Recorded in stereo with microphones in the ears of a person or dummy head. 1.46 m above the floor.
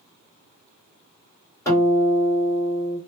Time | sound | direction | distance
1.6 | a guitar | 15° left (ahead or behind) | 1.6 m